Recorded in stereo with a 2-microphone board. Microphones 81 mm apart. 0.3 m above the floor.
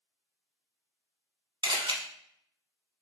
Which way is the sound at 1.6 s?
75° right (ahead or behind).